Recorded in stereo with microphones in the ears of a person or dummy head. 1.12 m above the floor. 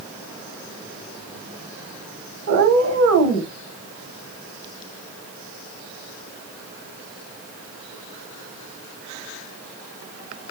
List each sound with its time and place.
2.5 s a cat meowing: 60° right (ahead or behind), 1.8 m